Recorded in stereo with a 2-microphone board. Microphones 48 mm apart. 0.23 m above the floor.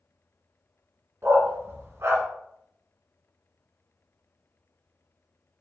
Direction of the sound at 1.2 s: 65° right (ahead or behind).